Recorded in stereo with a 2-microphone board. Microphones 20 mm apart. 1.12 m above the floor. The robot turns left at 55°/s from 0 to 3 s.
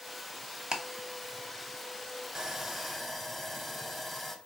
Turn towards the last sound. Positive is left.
turn(degrees=175)